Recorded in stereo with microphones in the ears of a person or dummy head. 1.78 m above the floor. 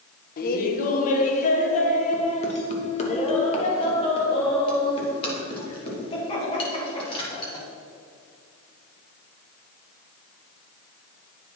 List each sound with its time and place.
0.4 s laughter: 50° left (ahead or behind), 1.3 m; by 7.7 s 30° left (ahead or behind), 5 m